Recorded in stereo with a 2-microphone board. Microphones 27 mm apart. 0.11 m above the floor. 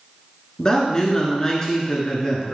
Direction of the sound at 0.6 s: 25° left (ahead or behind).